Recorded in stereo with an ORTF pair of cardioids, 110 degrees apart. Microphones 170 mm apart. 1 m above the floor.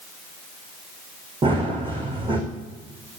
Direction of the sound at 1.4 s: 30° right.